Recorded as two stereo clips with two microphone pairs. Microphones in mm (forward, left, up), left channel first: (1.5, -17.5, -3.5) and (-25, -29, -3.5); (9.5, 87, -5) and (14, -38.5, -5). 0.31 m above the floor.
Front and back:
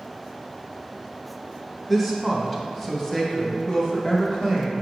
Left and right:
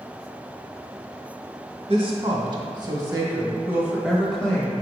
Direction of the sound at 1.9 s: 60° right.